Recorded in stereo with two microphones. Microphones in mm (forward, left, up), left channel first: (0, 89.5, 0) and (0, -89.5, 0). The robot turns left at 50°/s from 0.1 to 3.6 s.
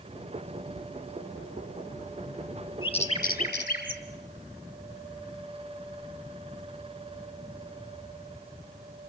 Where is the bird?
25° left (ahead or behind), 2.5 m; by 4.0 s 65° left (ahead or behind), 2.5 m.